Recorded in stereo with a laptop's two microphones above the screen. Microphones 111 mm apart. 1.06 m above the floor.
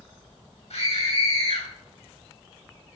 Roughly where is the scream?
Left.